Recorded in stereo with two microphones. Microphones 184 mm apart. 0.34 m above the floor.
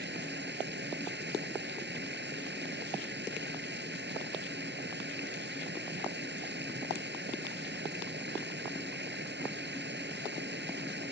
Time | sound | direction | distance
0.0 | running water | 70° right (ahead or behind) | ?